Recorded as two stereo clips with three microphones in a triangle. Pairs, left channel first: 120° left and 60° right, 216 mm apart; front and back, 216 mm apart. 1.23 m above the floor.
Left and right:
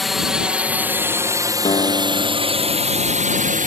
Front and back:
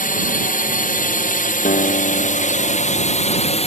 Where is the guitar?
55° left.